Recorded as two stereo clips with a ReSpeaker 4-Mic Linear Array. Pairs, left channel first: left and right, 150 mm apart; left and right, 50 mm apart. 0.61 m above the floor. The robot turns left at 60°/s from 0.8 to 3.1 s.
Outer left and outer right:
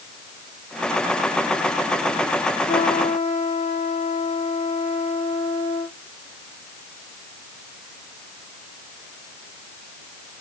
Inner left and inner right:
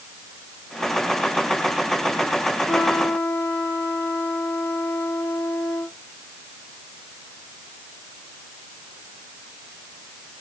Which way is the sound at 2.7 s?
20° left (ahead or behind).